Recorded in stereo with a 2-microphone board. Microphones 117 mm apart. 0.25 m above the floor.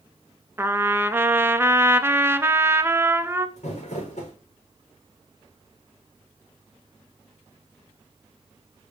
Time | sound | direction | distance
0.6 | a trumpet | 20° right (ahead or behind) | 0.6 m
3.6 | crumpling | 80° left | 4 m